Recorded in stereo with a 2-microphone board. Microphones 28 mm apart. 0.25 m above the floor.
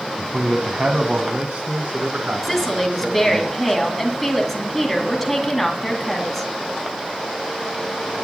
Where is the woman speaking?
Centre (ahead or behind), 2 m.